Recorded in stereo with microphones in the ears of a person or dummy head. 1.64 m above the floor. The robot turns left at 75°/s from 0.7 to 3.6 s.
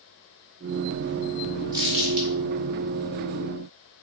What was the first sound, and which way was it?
Crumpling, 20° right (ahead or behind).